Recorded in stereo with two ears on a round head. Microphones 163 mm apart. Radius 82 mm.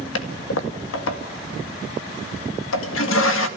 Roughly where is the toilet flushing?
Left.